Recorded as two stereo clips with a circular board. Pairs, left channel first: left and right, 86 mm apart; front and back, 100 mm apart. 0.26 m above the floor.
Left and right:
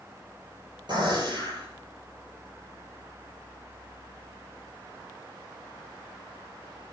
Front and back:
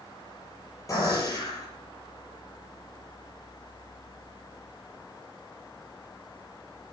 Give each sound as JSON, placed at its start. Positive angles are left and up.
{"t": 0.9, "sound": "a gunshot", "azimuth_deg": -60, "distance_m": 7.0}